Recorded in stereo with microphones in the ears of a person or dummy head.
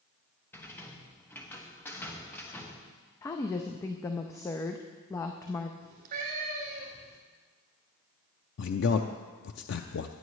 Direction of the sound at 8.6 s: 65° left (ahead or behind).